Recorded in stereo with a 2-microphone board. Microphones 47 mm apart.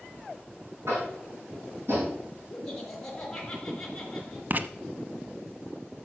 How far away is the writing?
About 0.7 m.